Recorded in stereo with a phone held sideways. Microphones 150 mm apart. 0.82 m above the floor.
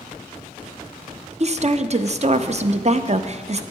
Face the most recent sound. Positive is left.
turn(degrees=-45)  # may be behind; listen again after turning